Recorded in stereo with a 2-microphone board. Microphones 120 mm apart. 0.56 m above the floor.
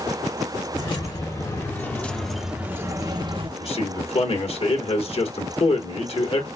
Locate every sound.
0.7 s keys jangling: 40° left (ahead or behind), 1.2 m; by 3.5 s 45° right (ahead or behind), 0.8 m
3.6 s a man speaking: 55° left (ahead or behind), 1.3 m